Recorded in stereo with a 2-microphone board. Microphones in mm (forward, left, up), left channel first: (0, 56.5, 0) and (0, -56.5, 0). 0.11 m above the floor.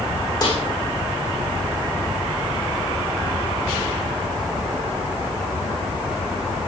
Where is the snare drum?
40° left (ahead or behind), 6.5 m.